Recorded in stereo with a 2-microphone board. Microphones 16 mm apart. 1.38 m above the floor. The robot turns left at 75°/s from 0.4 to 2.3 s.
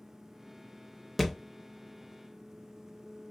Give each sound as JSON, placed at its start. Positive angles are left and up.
{"t": 1.2, "sound": "a thud", "side_deg": 0, "distance_m": 0.8}